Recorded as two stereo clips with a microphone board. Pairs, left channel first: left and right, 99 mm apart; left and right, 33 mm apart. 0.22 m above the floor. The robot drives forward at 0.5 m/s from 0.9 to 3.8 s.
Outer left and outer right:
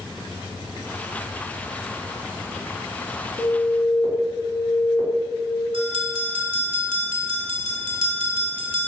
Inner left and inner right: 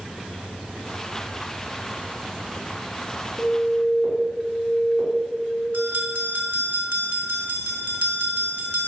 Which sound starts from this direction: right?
A bell, at 5.7 s.